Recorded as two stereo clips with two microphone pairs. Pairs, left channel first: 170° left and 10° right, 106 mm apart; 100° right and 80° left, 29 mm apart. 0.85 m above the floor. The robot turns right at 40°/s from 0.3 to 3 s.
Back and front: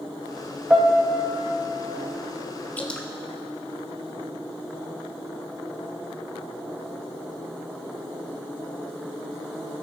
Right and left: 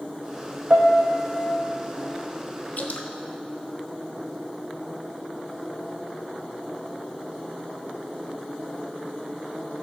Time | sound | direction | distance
0.7 | a piano | 70° left | 0.9 m
2.8 | dripping | 115° right | 1.1 m